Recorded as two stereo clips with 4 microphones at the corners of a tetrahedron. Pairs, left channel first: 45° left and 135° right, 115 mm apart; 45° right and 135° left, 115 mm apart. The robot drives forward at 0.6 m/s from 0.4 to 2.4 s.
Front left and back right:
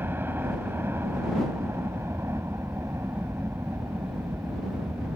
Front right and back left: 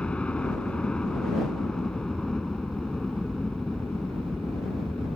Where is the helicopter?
110° right; by 5.2 s 125° right.